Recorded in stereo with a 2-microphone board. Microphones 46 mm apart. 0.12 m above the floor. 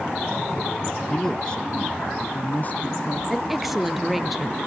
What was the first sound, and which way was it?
A man speaking, 15° left (ahead or behind).